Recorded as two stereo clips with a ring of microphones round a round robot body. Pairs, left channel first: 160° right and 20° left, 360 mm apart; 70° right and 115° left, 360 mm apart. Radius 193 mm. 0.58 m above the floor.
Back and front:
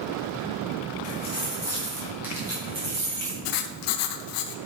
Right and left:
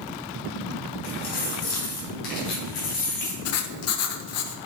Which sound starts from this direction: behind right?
Writing, at 3.5 s.